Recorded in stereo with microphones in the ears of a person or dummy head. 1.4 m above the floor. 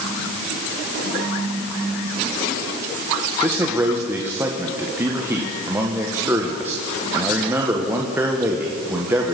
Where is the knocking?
No knocking in this recording.